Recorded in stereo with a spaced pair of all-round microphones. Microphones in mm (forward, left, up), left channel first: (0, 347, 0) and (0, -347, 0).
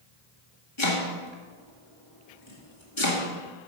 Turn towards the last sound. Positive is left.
turn(degrees=40)  # may be behind; listen again after turning